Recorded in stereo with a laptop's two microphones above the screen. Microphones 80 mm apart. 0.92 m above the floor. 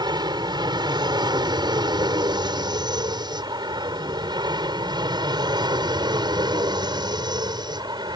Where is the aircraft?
65° right (ahead or behind).